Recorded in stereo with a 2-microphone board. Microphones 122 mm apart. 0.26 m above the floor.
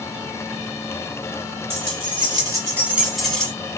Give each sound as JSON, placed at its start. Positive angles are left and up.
{"t": 1.7, "sound": "keys jangling", "side_deg": -50, "distance_m": 1.1}